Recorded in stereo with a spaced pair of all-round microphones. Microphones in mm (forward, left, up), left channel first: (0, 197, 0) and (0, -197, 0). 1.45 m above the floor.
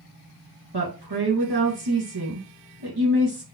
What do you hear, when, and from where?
0.7 s a woman speaking: 70° right (ahead or behind), 2 m